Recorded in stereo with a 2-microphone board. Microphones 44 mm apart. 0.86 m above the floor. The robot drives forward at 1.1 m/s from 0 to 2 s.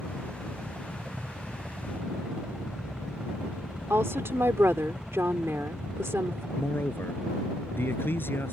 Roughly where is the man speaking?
Left.